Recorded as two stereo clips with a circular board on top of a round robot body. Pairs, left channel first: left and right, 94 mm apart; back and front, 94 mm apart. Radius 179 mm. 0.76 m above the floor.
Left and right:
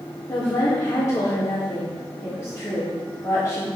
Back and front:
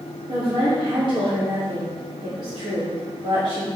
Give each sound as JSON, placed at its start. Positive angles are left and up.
{"t": 0.3, "sound": "a woman speaking", "azimuth_deg": 30, "distance_m": 3.0}